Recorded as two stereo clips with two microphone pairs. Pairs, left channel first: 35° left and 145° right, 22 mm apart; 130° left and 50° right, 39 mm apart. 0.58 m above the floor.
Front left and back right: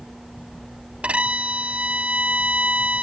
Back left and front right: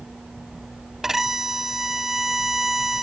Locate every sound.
1.0 s a violin: 135° right